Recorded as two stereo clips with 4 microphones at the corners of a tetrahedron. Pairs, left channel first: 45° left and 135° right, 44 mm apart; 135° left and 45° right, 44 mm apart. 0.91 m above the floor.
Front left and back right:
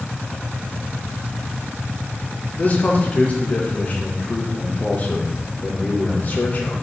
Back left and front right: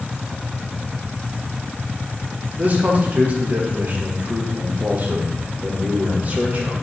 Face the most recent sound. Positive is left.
turn(degrees=0)